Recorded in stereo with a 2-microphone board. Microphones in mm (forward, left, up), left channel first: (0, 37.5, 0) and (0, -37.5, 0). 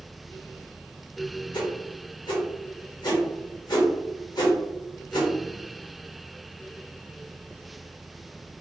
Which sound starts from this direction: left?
A whoosh, at 1.5 s.